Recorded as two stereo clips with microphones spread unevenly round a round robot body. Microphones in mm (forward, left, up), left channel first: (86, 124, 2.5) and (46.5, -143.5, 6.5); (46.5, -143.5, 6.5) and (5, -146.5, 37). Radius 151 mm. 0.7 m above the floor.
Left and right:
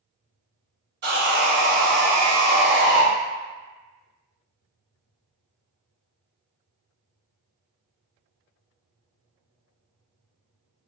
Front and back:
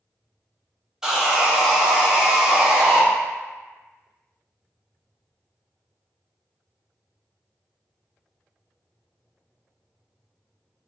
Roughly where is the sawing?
Ahead right.